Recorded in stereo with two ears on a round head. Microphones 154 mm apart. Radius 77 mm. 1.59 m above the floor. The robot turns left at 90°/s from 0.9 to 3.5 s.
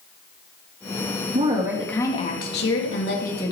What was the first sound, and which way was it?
A woman speaking, 140° right.